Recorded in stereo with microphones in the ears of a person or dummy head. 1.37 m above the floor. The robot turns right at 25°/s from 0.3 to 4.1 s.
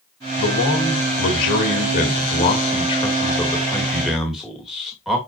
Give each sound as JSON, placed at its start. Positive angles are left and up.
{"t": 0.4, "sound": "a man speaking", "azimuth_deg": 95, "distance_m": 2.5}